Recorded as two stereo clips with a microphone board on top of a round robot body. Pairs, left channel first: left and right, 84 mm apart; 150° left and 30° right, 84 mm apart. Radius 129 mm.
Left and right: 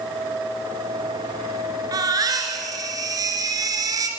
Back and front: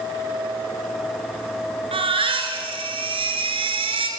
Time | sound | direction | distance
1.9 | a baby crying | 45° right | 2.5 m